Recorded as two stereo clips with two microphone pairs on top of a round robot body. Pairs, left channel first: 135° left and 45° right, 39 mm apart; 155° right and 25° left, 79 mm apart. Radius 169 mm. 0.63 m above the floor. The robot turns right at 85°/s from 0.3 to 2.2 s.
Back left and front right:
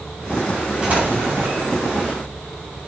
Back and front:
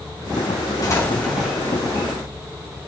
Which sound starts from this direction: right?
An explosion, at 0.8 s.